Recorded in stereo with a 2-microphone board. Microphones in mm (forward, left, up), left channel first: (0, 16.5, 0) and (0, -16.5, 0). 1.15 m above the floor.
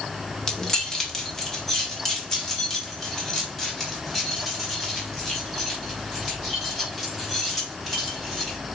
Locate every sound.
0.5 s keys jangling: 20° left (ahead or behind), 1.6 m; by 8.6 s 10° left (ahead or behind), 6 m